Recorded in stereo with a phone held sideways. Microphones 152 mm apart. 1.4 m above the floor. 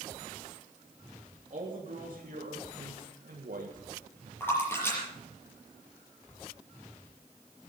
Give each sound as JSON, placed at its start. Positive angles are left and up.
{"t": 1.5, "sound": "a man speaking", "side_deg": -55, "distance_m": 3.0}
{"t": 4.4, "sound": "a splash", "side_deg": 15, "distance_m": 6.0}